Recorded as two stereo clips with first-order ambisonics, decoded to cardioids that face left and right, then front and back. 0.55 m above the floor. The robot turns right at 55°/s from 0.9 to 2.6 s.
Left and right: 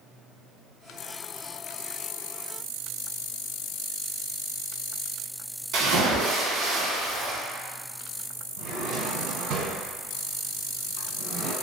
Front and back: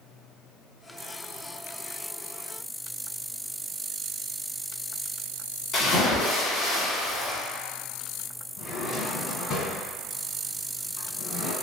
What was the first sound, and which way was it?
A splash, 65° right.